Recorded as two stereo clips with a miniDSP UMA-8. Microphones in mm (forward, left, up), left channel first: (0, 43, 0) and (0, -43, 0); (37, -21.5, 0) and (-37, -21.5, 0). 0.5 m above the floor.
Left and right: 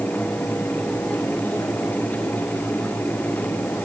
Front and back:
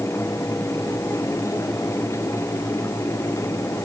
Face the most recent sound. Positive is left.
No sound to turn to.